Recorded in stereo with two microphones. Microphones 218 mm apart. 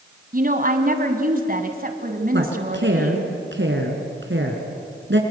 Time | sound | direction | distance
0.3 | a woman speaking | 45° right (ahead or behind) | 1.8 m
2.3 | a woman speaking | 65° right (ahead or behind) | 3.5 m